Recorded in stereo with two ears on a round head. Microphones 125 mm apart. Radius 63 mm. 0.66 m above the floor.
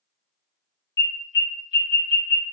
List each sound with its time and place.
1.0 s an alarm: 25° left (ahead or behind), 1.6 m